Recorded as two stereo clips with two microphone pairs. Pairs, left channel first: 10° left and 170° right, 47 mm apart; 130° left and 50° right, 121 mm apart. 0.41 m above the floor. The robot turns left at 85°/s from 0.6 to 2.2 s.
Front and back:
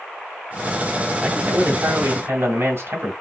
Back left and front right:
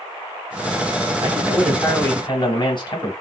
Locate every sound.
1.2 s a man speaking: 105° right, 2.5 m; by 3.1 s 175° left, 2.5 m